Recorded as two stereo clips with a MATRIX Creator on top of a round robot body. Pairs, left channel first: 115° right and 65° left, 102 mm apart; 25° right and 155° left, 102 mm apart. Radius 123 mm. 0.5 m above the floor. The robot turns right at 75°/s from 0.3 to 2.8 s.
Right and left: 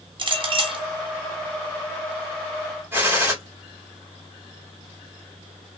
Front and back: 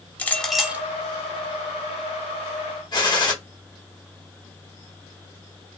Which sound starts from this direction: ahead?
A gunshot, at 2.9 s.